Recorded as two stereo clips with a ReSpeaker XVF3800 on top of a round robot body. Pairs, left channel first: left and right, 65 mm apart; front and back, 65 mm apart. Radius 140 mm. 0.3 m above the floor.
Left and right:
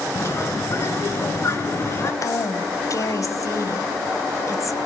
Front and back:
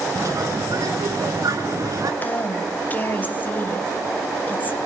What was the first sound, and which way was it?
A bird, 140° left.